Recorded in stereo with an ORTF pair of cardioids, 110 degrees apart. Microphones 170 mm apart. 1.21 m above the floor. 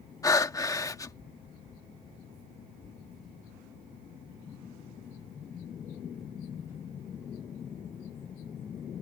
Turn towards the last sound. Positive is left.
turn(degrees=20)